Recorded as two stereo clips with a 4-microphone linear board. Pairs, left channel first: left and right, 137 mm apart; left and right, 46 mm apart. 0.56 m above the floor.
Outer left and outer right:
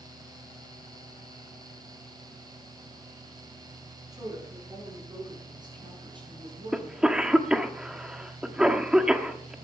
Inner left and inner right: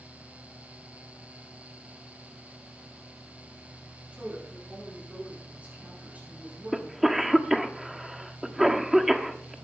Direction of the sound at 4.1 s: 25° right (ahead or behind).